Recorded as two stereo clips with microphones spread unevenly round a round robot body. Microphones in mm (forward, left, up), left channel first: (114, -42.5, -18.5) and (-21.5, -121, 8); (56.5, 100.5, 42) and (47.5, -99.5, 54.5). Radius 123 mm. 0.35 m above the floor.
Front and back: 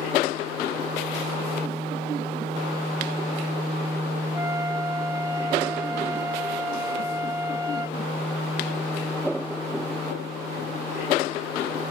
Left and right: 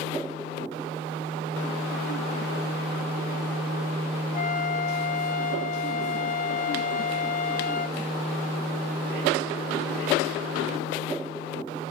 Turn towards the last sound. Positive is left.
turn(degrees=130)